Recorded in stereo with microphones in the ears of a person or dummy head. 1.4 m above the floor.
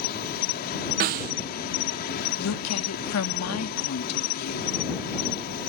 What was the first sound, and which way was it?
An insect, 50° left (ahead or behind).